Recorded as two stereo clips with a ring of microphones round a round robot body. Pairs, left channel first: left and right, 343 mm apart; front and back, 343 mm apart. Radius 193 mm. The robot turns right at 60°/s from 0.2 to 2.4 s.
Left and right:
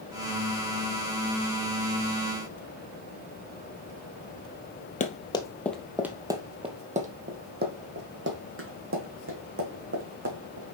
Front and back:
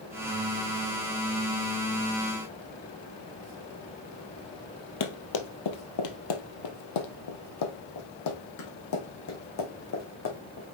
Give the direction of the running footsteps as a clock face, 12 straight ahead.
11 o'clock.